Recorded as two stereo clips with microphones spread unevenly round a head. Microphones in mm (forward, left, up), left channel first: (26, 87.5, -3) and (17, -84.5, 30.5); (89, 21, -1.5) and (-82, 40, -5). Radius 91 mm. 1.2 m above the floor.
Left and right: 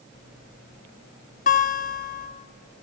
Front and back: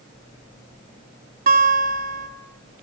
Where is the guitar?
135° left, 4 m.